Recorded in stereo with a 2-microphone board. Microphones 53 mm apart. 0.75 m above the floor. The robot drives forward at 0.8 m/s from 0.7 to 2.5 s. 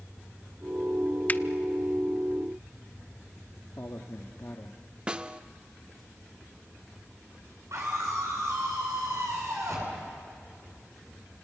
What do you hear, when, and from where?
1.3 s a finger snap: 30° left (ahead or behind), 0.5 m; by 1.4 s 35° left (ahead or behind), 0.5 m
3.8 s a man speaking: 60° left (ahead or behind), 1.2 m
5.1 s a snare drum: 20° right (ahead or behind), 0.6 m
7.7 s a scream: 70° right (ahead or behind), 8.5 m